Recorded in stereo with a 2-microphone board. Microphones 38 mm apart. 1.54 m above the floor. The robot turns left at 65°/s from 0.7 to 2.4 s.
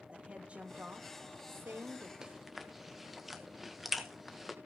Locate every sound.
0.1 s a woman speaking: 35° right, 2.5 m; by 2.1 s 125° right, 2.5 m
2.2 s chewing: 15° right (ahead or behind), 1.6 m; by 4.5 s 5° right (ahead or behind), 1.6 m